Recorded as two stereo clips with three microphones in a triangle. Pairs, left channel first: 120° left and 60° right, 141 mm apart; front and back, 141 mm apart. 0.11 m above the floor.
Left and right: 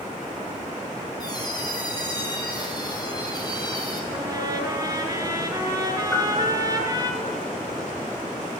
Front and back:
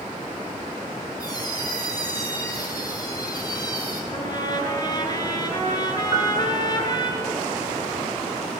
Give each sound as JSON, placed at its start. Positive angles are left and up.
{"t": 1.2, "sound": "a squeak", "azimuth_deg": 60, "distance_m": 2.0}
{"t": 4.1, "sound": "a trumpet", "azimuth_deg": -25, "distance_m": 1.4}
{"t": 6.1, "sound": "a piano", "azimuth_deg": 180, "distance_m": 1.9}